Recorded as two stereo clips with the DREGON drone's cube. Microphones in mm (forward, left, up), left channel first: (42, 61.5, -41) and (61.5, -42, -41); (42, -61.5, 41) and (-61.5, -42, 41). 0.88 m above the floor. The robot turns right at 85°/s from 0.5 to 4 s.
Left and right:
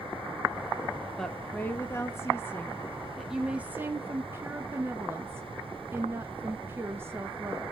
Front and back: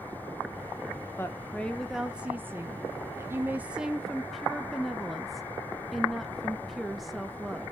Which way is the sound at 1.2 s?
20° left.